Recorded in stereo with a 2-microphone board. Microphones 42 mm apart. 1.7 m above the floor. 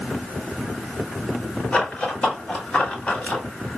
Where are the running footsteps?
20° left (ahead or behind), 1.8 m; by 3.4 s 30° left (ahead or behind), 1.8 m.